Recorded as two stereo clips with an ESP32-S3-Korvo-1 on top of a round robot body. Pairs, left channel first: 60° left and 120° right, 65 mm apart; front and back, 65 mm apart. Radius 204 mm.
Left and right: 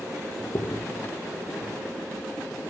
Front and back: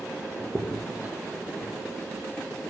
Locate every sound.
0.4 s a crack: 115° left, 2 m